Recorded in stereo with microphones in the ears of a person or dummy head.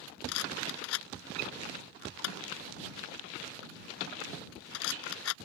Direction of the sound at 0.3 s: 75° left (ahead or behind).